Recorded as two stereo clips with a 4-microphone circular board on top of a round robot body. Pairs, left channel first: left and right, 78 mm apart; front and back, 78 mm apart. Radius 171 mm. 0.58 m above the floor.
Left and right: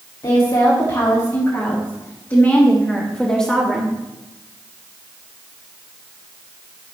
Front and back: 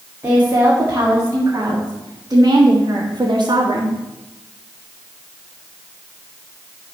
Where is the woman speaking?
110° left, 3 m; by 4.0 s straight behind, 2 m.